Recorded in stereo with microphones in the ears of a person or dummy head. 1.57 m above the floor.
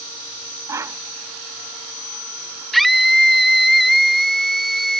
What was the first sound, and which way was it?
A whoosh, 15° right (ahead or behind).